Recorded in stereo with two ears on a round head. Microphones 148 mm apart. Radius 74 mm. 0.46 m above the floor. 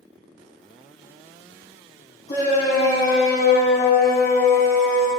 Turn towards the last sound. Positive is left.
turn(degrees=15)  # may be behind; listen again after turning